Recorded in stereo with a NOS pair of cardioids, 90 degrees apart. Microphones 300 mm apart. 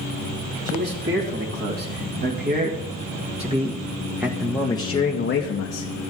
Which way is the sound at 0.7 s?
40° right.